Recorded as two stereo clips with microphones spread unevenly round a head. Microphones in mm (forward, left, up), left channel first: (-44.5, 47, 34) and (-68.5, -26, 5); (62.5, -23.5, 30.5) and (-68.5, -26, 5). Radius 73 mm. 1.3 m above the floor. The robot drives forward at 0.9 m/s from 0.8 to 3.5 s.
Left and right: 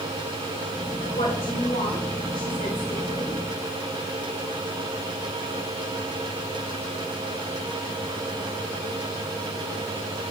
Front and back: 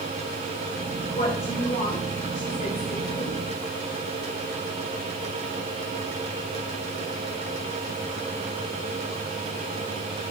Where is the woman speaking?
45° left, 5 m; by 3.4 s 65° left, 4 m.